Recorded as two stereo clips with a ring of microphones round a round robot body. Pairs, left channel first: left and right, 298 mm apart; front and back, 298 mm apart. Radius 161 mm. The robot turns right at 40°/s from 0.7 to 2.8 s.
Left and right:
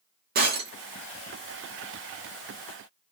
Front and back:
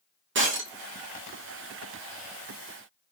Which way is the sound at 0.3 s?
140° right.